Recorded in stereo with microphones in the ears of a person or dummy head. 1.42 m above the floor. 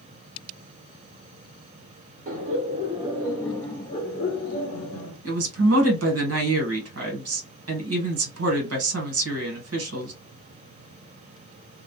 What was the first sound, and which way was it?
Laughter, 40° right (ahead or behind).